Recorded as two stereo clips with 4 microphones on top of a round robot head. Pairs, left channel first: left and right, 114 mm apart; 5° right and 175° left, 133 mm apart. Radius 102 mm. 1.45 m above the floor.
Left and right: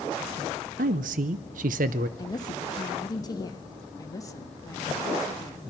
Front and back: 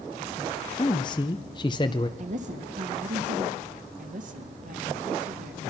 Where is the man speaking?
70° right, 0.6 m.